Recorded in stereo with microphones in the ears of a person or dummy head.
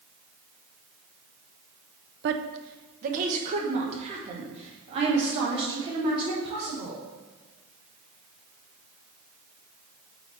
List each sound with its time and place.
2.2 s a woman speaking: 65° right (ahead or behind), 0.6 m; by 7.0 s 30° right (ahead or behind), 4 m